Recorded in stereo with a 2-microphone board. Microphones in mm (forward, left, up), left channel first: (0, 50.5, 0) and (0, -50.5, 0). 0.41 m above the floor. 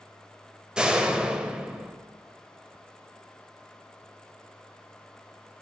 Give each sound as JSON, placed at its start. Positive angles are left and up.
{"t": 0.8, "sound": "a door slam", "side_deg": -10, "distance_m": 1.4}